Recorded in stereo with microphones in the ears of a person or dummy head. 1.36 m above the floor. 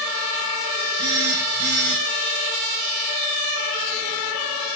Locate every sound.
1.0 s a phone buzzing: 40° right (ahead or behind), 1.4 m